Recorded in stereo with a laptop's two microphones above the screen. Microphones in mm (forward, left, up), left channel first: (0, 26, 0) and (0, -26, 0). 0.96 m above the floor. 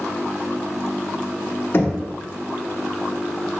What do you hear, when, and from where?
1.7 s knocking: 45° left (ahead or behind), 0.9 m